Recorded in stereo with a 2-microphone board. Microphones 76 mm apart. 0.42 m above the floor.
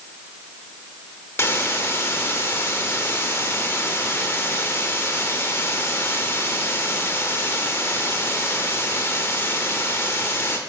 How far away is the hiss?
About 0.7 m.